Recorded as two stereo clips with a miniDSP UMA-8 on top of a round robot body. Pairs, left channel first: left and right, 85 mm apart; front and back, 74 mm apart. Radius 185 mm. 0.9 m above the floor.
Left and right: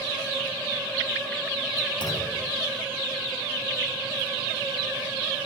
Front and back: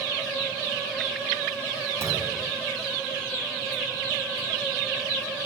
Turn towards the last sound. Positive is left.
turn(degrees=125)